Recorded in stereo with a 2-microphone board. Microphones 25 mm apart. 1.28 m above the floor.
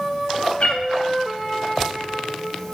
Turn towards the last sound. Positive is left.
turn(degrees=50)  # may be behind; listen again after turning